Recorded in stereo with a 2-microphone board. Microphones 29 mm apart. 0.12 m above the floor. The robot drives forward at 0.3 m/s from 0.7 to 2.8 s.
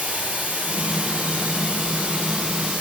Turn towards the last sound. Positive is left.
turn(degrees=-50)  # may be behind; listen again after turning